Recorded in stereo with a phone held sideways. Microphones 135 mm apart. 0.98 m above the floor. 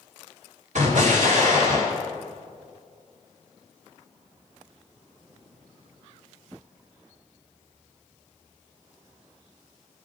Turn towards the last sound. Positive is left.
turn(degrees=-65)  # may be behind; listen again after turning